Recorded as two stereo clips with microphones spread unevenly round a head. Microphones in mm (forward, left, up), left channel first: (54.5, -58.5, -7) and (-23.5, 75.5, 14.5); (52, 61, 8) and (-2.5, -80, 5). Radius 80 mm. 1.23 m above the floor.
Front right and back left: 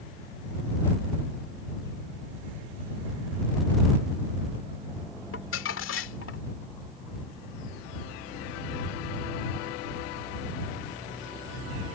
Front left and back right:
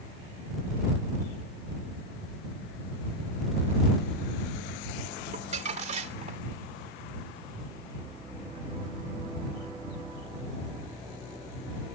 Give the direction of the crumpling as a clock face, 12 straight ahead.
2 o'clock.